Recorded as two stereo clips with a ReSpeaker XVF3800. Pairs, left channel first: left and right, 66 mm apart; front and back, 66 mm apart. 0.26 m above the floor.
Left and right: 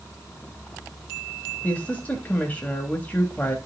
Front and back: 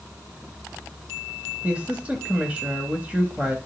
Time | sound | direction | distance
1.6 | a woman speaking | 135° left | 1.0 m